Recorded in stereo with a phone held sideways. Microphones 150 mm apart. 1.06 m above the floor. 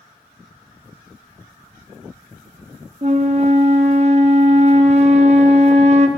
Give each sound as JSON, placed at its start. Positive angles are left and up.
{"t": 3.0, "sound": "a flute", "side_deg": -45, "distance_m": 0.9}